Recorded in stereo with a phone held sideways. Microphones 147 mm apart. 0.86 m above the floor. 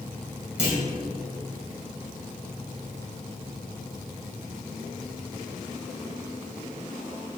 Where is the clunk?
50° right (ahead or behind), 2.5 m.